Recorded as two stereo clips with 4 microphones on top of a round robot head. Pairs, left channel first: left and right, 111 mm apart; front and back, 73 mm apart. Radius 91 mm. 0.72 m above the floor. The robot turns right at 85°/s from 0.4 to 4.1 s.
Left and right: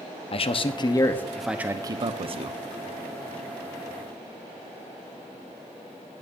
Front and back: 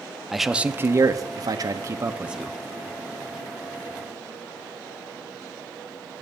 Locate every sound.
0.3 s a man speaking: 95° left, 1.1 m; by 2.6 s 80° right, 1.1 m